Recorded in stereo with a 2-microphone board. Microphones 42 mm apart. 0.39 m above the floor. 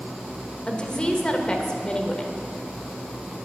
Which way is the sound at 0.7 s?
20° left (ahead or behind).